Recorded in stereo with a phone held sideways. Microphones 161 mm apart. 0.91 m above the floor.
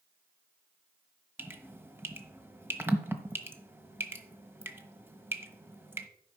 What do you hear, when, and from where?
1.4 s dripping: 15° right (ahead or behind), 1.0 m